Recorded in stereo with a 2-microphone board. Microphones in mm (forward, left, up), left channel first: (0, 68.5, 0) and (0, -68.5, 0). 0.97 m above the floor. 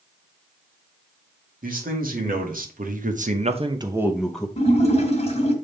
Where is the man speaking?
70° right (ahead or behind), 2 m; by 4.5 s 10° left (ahead or behind), 0.9 m.